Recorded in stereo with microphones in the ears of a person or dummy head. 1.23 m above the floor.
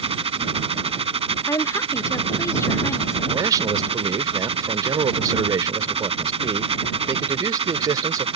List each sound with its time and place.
0.0 s a machine running: 30° right (ahead or behind)
1.5 s a woman speaking: 20° left (ahead or behind)
3.3 s a man speaking: 20° right (ahead or behind)